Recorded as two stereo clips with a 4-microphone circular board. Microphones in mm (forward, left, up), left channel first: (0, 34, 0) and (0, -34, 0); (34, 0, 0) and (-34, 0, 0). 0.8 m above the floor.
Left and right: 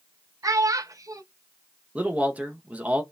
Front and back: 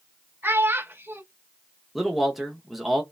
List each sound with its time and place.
0.4 s a child speaking: 125° right, 0.6 m
1.9 s a man speaking: 100° right, 0.6 m